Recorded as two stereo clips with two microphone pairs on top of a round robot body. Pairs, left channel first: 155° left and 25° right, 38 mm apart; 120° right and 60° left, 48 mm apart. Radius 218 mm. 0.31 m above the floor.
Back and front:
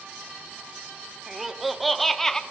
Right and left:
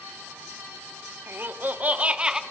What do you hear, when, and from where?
1.3 s laughter: 60° left, 1.6 m; by 2.4 s 115° left, 1.3 m